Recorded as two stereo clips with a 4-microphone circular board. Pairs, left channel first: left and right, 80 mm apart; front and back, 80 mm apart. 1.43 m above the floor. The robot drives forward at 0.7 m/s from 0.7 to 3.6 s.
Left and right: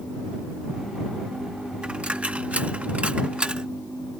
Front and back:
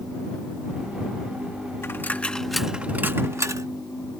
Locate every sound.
1.8 s a dropped coin: 25° right; by 3.7 s 160° right